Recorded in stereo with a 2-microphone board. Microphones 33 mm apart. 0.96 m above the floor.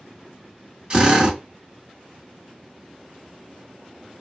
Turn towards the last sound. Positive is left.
turn(degrees=-30)  # may be behind; listen again after turning